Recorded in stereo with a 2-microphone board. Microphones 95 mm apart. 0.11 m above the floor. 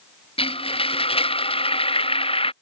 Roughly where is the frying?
Left.